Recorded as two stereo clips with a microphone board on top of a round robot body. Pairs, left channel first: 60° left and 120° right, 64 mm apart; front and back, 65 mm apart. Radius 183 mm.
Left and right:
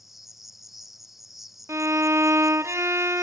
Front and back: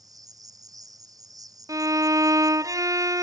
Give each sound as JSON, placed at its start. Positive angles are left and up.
{"t": 0.0, "sound": "an insect", "azimuth_deg": 150}
{"t": 1.7, "sound": "a violin", "azimuth_deg": -160}